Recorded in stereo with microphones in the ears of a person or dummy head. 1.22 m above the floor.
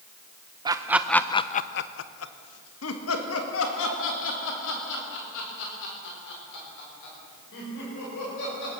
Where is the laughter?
20° right (ahead or behind), 0.8 m; by 8.7 s 70° left (ahead or behind), 5.5 m.